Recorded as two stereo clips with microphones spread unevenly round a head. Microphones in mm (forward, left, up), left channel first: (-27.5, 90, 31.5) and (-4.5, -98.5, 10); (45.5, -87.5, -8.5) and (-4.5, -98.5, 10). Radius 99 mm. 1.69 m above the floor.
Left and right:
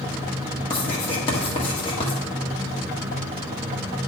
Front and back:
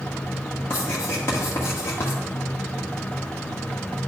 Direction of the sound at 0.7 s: 65° left.